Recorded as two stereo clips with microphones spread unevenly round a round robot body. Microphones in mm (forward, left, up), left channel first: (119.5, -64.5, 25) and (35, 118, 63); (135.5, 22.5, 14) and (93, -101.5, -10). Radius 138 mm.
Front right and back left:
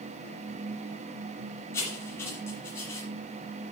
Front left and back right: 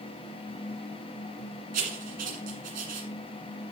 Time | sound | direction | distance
1.7 | writing | 145° right | 1.6 m